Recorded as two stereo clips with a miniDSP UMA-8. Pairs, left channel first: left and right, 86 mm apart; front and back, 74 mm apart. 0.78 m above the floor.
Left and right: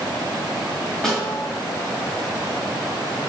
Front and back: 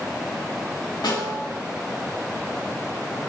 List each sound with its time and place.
1.0 s a snare drum: 5° left, 3 m